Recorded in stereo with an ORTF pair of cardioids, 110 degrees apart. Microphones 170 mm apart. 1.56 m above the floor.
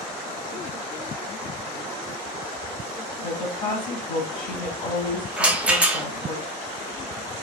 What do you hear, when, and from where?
3.2 s a woman speaking: 30° left, 1.6 m
5.4 s a rattle: 10° right, 0.6 m